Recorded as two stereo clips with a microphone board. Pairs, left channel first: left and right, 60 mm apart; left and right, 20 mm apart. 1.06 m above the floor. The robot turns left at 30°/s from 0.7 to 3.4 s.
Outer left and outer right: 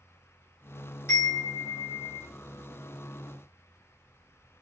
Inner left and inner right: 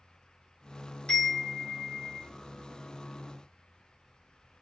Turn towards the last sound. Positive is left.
turn(degrees=65)